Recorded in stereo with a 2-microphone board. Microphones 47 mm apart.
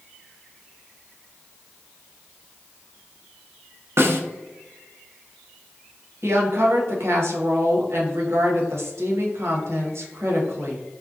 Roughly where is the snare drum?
Right.